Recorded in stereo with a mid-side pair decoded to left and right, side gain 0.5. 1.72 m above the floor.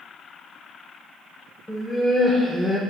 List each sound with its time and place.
1.7 s laughter: 15° left, 1.6 m; by 2.8 s 5° right, 0.9 m